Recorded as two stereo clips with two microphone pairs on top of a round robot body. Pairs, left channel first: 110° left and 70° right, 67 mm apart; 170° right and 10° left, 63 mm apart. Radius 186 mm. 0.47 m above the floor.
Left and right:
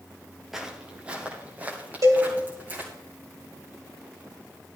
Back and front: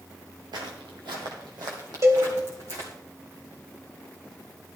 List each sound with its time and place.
0.5 s footsteps: 15° left, 0.8 m; by 2.9 s 5° right, 4 m
2.0 s a cowbell: 30° right, 2.5 m